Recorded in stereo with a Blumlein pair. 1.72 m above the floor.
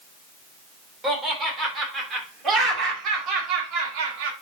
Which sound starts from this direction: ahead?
Laughter, at 1.0 s.